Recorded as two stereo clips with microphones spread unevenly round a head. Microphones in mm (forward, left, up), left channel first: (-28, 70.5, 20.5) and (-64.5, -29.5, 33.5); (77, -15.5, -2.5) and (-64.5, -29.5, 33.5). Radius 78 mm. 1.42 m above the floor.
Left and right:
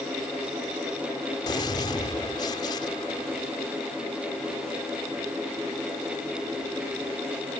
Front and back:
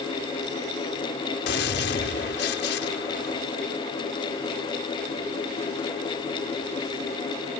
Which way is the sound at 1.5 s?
5° left.